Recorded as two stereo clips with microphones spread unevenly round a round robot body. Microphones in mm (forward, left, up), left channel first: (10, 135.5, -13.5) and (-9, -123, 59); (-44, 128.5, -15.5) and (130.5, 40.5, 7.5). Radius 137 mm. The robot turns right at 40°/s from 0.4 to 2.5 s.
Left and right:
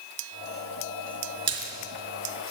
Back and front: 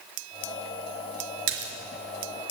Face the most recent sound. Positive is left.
turn(degrees=20)